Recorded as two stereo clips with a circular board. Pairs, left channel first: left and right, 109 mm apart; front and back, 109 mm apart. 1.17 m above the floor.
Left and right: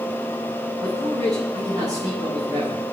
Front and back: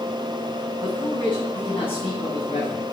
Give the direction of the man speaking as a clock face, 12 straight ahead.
1 o'clock.